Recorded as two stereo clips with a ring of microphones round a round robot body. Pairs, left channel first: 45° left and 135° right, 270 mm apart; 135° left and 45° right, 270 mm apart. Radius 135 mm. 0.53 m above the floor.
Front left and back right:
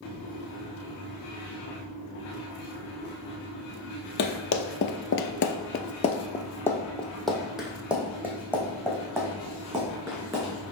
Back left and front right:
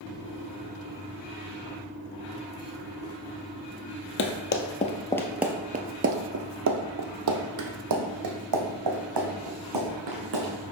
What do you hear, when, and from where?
4.2 s running footsteps: 90° left, 0.9 m; by 10.5 s 55° right, 3 m